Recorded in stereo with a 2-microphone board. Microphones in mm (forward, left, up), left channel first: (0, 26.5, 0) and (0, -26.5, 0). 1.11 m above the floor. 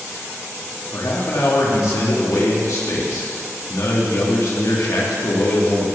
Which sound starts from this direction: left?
A man speaking, at 0.9 s.